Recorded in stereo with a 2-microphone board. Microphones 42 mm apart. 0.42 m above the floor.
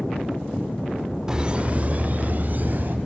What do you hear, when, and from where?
1.3 s laughter: 15° right (ahead or behind), 0.7 m; by 3.0 s 45° right (ahead or behind), 2 m